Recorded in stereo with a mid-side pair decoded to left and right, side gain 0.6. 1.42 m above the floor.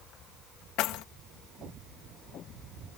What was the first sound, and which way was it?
Keys jangling, 70° left.